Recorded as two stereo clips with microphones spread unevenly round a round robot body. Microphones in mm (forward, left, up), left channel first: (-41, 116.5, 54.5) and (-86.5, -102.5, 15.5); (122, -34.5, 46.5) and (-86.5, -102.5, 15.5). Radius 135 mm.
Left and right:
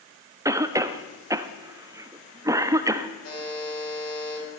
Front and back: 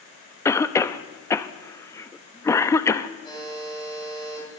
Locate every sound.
0.5 s a cough: 65° right, 0.6 m
3.2 s a buzzer: 95° left, 5 m